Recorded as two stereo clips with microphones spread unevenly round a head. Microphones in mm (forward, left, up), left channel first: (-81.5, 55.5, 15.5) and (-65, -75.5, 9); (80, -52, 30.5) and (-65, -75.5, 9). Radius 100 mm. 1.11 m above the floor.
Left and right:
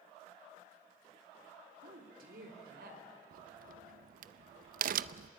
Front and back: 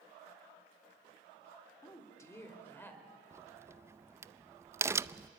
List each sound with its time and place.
1.8 s a woman speaking: 60° right, 3.5 m; by 3.0 s 70° right, 5 m
3.3 s a crack: 95° right, 0.5 m